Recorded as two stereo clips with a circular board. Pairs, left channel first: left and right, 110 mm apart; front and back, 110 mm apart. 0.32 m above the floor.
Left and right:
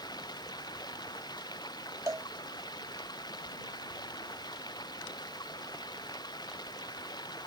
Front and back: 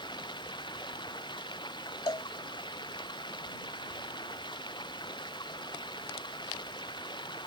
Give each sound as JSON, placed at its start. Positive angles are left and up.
{"t": 0.0, "sound": "running water", "azimuth_deg": 45}
{"t": 2.1, "sound": "a cowbell", "azimuth_deg": -35}